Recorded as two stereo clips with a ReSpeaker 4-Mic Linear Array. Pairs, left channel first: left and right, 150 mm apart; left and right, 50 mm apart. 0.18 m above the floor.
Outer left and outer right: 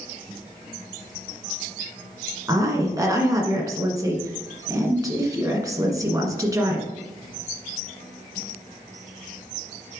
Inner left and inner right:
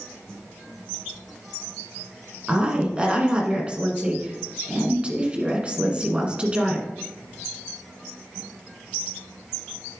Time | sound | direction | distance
2.5 | a woman speaking | 25° right (ahead or behind) | 1.6 m